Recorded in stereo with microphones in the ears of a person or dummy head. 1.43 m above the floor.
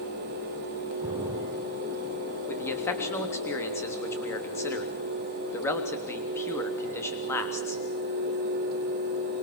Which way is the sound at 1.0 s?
10° right (ahead or behind).